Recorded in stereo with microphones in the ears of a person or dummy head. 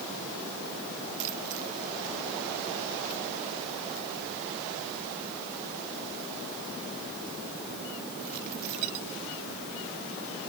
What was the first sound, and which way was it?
Only background noise.